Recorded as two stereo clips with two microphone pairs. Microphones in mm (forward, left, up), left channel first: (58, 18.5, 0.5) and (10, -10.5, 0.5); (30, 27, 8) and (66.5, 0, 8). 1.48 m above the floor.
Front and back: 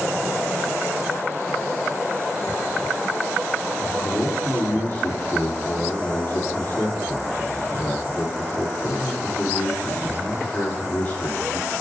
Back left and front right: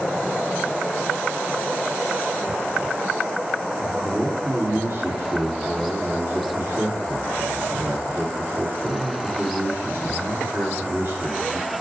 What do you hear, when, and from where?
3.8 s a man speaking: 10° right, 3.5 m